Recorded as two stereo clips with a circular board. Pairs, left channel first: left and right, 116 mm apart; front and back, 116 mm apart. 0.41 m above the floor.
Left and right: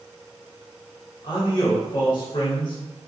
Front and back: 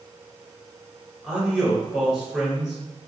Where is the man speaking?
90° left, 1.2 m.